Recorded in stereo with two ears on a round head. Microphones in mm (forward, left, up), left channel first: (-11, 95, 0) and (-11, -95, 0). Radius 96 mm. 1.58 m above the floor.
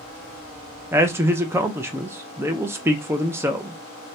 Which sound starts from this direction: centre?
A man speaking, at 0.9 s.